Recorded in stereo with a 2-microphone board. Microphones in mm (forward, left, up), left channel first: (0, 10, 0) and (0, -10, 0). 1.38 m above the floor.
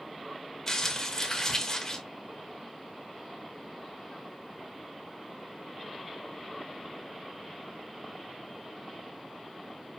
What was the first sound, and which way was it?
Crumpling, 30° left (ahead or behind).